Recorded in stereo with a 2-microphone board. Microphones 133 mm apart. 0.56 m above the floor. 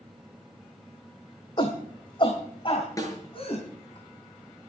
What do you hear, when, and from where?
1.6 s a shout: 35° left (ahead or behind), 1.5 m; by 4.0 s 40° left (ahead or behind), 4.5 m
3.0 s a snare drum: 25° left (ahead or behind), 5.5 m